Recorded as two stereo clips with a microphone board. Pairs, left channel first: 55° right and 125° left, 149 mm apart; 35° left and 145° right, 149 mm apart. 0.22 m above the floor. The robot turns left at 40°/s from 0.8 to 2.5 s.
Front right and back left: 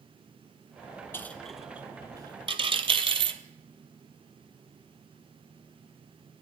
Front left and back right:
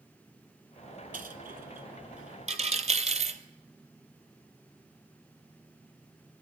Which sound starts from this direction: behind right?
A dropped coin, at 1.1 s.